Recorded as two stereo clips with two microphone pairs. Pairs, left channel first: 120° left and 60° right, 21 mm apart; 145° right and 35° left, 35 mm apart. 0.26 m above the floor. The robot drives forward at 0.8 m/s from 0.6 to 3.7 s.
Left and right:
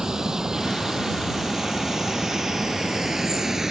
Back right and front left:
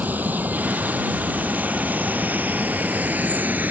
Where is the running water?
5° left; by 3.7 s 10° left.